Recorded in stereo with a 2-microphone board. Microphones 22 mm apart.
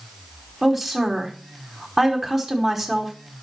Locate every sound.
0.6 s a woman speaking: 20° right (ahead or behind), 1.1 m